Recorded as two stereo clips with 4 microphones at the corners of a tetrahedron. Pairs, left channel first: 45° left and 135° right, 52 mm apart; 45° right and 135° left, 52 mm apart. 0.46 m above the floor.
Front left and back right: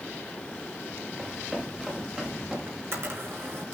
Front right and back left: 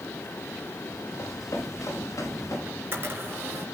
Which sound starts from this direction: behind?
A camera shutter, at 2.7 s.